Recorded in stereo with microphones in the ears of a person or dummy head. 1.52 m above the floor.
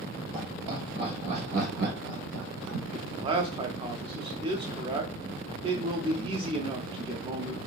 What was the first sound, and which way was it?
Laughter, 10° right (ahead or behind).